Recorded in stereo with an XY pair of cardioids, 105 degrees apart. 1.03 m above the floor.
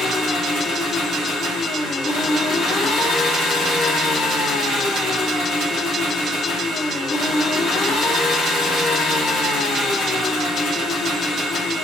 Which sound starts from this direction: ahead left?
An engine running, at 0.0 s.